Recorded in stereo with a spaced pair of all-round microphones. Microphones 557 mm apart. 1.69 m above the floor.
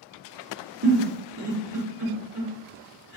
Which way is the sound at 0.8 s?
45° right (ahead or behind).